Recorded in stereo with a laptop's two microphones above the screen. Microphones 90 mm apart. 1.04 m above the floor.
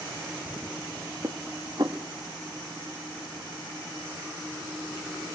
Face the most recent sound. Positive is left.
turn(degrees=-50)  # may be behind; listen again after turning